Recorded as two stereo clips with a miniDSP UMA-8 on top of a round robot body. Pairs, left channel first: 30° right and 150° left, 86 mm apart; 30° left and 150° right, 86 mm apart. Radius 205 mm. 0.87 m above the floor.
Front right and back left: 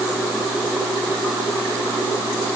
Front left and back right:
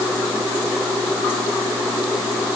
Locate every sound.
Only background noise.